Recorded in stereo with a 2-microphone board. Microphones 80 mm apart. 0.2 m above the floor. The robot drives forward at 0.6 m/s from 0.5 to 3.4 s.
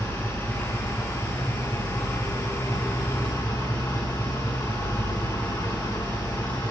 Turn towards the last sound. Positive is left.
turn(degrees=35)  # may be behind; listen again after turning